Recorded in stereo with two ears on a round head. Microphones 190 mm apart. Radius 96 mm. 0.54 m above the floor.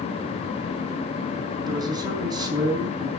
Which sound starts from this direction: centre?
A man speaking, at 1.7 s.